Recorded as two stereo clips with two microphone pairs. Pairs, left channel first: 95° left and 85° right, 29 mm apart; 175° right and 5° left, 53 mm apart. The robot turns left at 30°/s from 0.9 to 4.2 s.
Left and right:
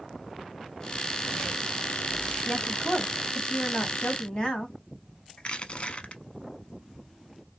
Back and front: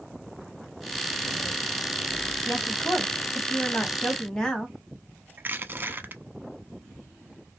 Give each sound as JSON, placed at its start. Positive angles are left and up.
{"t": 2.5, "sound": "a woman speaking", "azimuth_deg": 175, "distance_m": 1.3}
{"t": 5.4, "sound": "crushing", "azimuth_deg": 50, "distance_m": 0.5}